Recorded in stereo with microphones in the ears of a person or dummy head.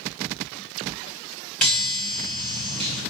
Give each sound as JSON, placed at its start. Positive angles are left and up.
{"t": 1.6, "sound": "a chime", "side_deg": 5, "distance_m": 1.1}